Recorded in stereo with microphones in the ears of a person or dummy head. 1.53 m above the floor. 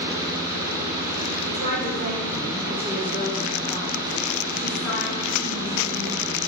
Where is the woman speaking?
60° right (ahead or behind), 1.6 m; by 6.4 s 40° left (ahead or behind), 3 m.